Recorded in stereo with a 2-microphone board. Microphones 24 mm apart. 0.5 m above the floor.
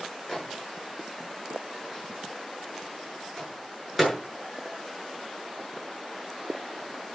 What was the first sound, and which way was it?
A microwave, 10° left (ahead or behind).